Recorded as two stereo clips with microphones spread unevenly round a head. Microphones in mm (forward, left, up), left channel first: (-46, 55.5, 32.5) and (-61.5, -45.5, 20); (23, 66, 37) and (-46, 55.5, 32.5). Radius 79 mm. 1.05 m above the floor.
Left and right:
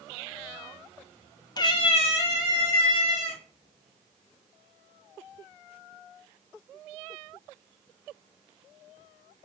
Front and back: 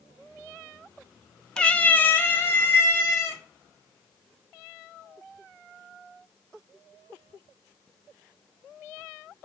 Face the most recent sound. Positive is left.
turn(degrees=60)